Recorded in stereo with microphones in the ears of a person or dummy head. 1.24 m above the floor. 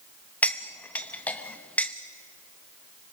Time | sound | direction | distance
0.4 | cutlery clinking | 10° left (ahead or behind) | 0.7 m